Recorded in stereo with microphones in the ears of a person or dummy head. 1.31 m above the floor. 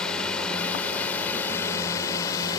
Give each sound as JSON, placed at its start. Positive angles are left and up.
{"t": 0.0, "sound": "a drone", "side_deg": 0}